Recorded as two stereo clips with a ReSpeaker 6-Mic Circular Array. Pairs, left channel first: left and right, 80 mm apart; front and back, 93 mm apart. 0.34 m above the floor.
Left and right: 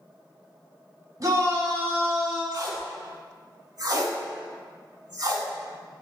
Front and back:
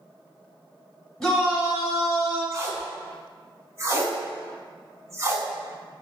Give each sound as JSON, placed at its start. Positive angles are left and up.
{"t": 1.2, "sound": "a shout", "azimuth_deg": -80, "distance_m": 1.2}
{"t": 2.5, "sound": "tape being pulled", "azimuth_deg": -125, "distance_m": 0.5}